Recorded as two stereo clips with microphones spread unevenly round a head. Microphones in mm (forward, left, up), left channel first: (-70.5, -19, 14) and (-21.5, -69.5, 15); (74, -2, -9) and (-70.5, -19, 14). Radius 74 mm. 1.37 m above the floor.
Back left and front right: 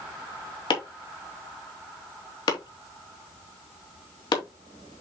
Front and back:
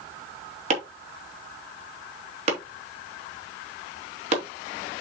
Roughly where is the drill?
No drill in this recording.